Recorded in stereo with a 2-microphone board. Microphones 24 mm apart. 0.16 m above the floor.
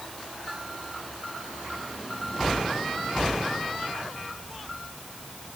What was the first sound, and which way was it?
Only background noise.